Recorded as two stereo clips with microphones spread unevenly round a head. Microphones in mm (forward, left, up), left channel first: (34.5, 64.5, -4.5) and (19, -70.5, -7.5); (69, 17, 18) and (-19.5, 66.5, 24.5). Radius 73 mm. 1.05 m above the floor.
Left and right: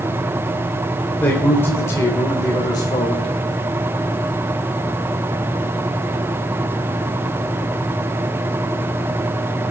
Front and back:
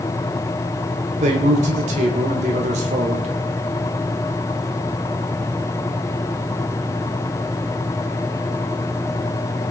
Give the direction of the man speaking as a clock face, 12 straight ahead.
7 o'clock.